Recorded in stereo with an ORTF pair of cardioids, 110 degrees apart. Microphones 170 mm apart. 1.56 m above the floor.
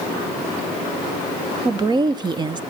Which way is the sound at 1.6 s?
25° right.